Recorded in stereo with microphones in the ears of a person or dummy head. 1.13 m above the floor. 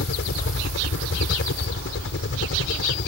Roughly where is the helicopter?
Left.